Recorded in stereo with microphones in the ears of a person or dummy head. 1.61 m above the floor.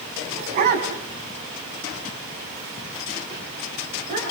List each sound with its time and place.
0.3 s a dog barking: 50° right (ahead or behind), 4 m; by 4.2 s 40° right (ahead or behind), 9.5 m